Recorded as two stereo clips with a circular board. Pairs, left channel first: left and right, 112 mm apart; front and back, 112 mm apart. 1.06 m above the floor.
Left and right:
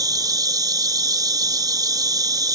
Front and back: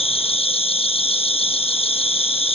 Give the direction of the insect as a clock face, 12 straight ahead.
1 o'clock.